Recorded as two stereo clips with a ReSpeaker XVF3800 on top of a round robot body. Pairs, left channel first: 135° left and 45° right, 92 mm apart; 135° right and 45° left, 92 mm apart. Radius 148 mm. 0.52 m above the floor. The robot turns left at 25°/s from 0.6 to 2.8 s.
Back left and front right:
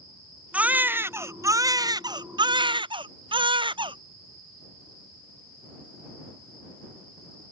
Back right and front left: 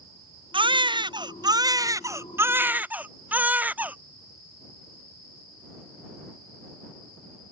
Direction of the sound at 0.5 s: 30° left.